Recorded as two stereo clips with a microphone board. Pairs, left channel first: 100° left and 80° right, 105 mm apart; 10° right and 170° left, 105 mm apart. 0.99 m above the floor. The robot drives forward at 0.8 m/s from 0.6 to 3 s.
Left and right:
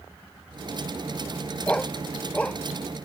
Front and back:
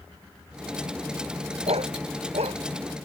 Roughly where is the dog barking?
Behind.